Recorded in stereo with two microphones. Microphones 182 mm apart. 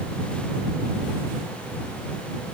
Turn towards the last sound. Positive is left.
No sound to turn to.